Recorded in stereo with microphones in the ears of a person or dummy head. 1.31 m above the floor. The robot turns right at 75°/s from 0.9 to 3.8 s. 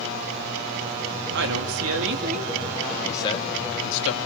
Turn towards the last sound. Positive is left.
turn(degrees=65)